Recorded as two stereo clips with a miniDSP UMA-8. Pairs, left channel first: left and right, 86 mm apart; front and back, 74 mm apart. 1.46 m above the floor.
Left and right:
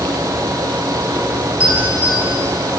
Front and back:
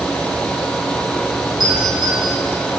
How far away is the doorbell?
About 9.5 m.